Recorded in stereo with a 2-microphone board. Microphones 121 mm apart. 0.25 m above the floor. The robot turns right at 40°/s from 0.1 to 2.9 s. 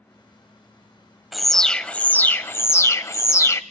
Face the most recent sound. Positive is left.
turn(degrees=25)  # may be behind; listen again after turning